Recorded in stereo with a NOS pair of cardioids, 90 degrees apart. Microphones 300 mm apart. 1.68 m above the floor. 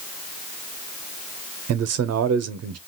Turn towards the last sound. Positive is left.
turn(degrees=-60)